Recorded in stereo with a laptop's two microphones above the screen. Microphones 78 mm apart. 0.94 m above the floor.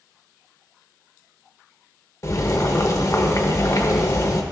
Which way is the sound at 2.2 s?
35° left (ahead or behind).